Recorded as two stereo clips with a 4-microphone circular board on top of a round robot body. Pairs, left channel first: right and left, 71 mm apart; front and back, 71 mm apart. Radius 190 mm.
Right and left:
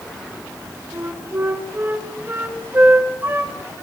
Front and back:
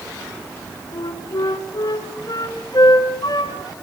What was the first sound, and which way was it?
A flute, 25° left.